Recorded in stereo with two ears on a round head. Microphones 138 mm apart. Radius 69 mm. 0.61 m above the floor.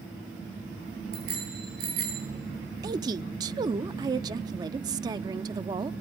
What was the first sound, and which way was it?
A bicycle bell, 75° right (ahead or behind).